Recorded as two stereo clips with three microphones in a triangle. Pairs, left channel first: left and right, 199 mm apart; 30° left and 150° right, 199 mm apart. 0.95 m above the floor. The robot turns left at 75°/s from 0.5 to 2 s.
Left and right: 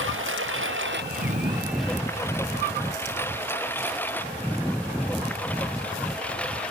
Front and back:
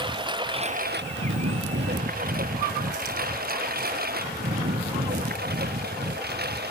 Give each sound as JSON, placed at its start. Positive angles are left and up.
{"t": 0.0, "sound": "a lawn mower", "azimuth_deg": -85}